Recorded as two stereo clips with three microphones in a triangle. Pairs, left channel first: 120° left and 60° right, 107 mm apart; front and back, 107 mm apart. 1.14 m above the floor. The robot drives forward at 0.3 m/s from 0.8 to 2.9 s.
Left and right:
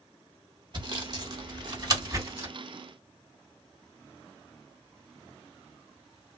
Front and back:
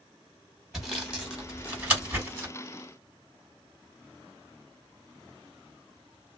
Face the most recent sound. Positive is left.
turn(degrees=-120)